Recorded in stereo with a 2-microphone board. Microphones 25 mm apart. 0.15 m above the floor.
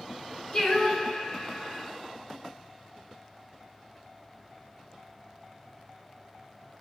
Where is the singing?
35° left (ahead or behind), 1.9 m.